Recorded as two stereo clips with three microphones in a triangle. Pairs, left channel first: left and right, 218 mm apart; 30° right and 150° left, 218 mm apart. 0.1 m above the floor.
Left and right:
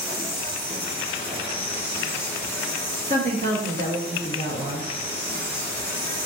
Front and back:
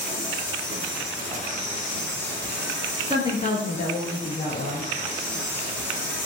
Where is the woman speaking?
65° right, 1.3 m.